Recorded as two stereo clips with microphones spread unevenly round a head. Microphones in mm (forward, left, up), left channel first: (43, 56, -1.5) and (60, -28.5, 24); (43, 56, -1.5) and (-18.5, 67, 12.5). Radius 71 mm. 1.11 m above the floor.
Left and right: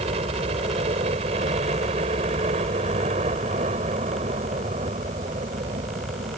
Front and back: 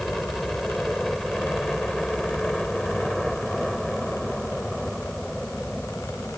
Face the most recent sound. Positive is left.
turn(degrees=-95)